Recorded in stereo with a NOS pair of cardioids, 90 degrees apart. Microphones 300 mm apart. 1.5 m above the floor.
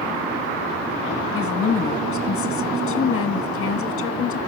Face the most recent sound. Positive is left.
turn(degrees=45)